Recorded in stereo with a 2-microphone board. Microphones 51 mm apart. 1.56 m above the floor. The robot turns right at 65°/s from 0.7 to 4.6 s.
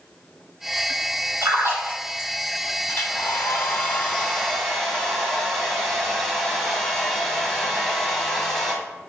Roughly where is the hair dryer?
Ahead left.